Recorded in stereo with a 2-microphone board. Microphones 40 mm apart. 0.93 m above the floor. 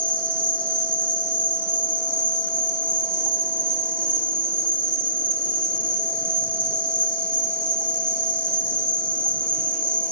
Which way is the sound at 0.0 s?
30° left (ahead or behind).